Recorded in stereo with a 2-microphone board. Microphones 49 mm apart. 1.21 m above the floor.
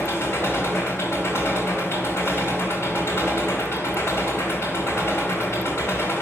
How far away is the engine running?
About 2.5 m.